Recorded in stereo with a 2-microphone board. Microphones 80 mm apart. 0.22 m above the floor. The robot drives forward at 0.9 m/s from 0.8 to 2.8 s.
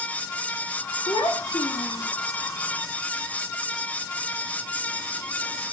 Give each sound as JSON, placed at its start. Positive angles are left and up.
{"t": 1.1, "sound": "a child speaking", "side_deg": 65, "distance_m": 2.0}